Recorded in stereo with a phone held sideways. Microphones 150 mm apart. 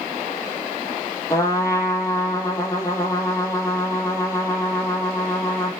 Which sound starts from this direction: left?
A trumpet, at 1.3 s.